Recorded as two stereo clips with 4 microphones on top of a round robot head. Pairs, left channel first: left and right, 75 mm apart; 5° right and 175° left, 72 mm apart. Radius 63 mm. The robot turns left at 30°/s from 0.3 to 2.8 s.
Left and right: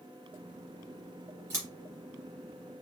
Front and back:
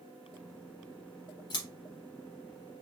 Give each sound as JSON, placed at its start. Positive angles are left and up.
{"t": 1.5, "sound": "scissors", "azimuth_deg": -30, "distance_m": 0.6}